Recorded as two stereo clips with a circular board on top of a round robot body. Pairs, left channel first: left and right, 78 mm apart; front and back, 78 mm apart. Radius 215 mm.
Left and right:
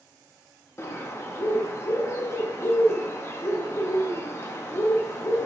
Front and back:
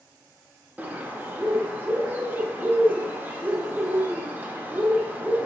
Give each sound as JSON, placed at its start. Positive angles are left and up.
{"t": 0.8, "sound": "a bird", "azimuth_deg": 125, "distance_m": 0.6}